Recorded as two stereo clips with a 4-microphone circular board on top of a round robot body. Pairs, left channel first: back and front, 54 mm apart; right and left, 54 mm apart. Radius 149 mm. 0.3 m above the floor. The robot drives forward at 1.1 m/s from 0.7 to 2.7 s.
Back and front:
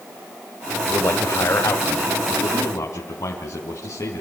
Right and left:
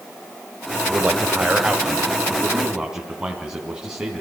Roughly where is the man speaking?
Behind left.